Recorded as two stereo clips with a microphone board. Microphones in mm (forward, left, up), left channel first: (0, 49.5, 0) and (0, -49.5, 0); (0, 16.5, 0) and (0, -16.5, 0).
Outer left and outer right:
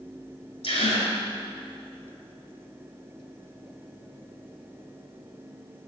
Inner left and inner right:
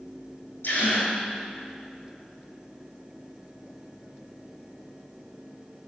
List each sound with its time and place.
0.6 s a gasp: 85° left, 2.5 m